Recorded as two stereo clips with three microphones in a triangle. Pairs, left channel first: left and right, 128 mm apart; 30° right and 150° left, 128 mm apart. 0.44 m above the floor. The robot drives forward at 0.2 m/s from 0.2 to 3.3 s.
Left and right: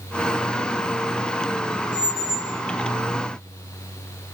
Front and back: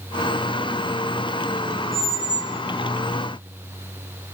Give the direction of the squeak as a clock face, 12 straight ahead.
5 o'clock.